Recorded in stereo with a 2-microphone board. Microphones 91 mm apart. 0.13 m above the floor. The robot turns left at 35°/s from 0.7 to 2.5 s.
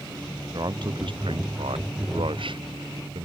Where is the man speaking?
50° right; by 3.3 s 115° right.